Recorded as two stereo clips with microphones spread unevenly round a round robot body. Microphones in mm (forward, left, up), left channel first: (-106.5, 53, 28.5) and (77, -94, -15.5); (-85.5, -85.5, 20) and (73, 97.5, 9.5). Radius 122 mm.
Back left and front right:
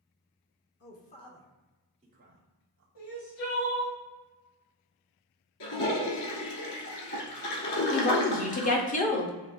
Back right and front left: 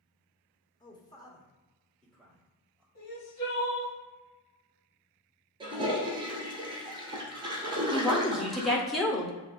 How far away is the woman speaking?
About 0.8 m.